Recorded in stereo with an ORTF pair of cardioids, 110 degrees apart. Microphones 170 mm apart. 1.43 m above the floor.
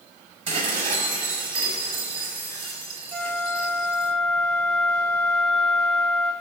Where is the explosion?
I don't hear an explosion.